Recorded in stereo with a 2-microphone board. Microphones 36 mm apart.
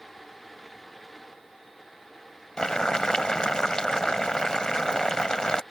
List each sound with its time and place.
2.6 s boiling: 20° left (ahead or behind)